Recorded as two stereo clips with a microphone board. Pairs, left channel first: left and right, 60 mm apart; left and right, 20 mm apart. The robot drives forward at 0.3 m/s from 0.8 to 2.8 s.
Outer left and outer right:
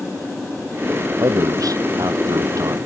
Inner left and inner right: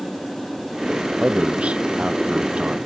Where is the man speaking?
75° right (ahead or behind).